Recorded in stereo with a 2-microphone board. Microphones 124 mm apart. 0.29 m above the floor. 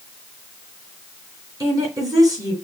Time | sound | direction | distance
1.6 | a woman speaking | 30° right (ahead or behind) | 2.5 m